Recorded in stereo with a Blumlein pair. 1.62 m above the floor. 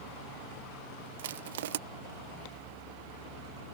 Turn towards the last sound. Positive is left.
turn(degrees=-55)